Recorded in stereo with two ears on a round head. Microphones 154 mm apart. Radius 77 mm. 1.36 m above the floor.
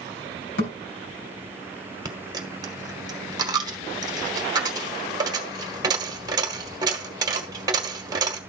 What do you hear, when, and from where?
0.6 s a thud: 70° left (ahead or behind), 3 m
2.0 s a dropped coin: 25° right (ahead or behind), 1.1 m